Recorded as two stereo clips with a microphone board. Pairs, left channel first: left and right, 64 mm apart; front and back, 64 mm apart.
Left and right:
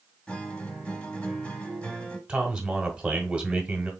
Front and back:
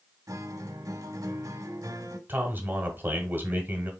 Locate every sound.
0.3 s a guitar: 160° left, 0.8 m
2.3 s a man speaking: 155° right, 1.1 m